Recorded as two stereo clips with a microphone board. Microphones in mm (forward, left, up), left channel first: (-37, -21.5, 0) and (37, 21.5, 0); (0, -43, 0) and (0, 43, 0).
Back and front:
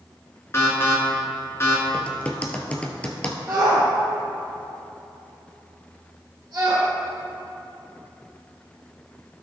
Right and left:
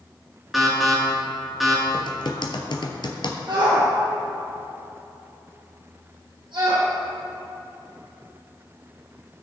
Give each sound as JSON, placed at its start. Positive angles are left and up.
{"t": 0.5, "sound": "an alarm", "azimuth_deg": 180, "distance_m": 2.5}
{"t": 1.9, "sound": "typing on a keyboard", "azimuth_deg": -75, "distance_m": 1.1}
{"t": 3.5, "sound": "a shout", "azimuth_deg": 90, "distance_m": 3.0}